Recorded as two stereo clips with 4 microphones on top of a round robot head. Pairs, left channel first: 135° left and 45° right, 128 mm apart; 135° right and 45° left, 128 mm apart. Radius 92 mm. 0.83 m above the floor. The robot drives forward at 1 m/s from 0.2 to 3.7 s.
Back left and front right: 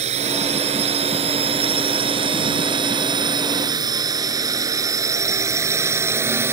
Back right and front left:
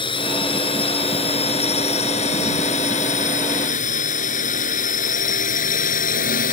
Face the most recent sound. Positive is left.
turn(degrees=-115)